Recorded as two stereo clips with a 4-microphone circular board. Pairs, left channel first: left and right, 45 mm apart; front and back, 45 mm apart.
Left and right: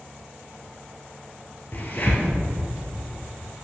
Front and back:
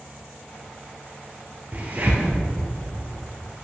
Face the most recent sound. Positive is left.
turn(degrees=135)